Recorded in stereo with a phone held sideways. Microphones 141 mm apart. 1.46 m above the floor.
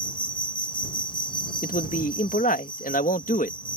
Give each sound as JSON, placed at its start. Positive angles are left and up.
{"t": 0.0, "sound": "an insect", "side_deg": 35}
{"t": 1.6, "sound": "a man speaking", "side_deg": 75}